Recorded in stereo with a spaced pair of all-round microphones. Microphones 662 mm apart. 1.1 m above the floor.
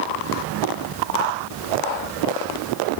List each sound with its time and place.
Only background noise.